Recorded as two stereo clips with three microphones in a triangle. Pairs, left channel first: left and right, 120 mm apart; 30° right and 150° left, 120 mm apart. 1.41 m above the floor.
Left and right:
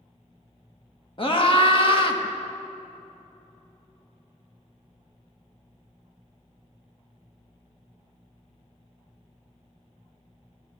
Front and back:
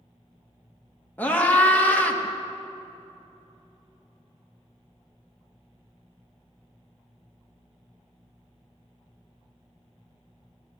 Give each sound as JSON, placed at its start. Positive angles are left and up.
{"t": 1.2, "sound": "a scream", "azimuth_deg": 45, "distance_m": 1.7}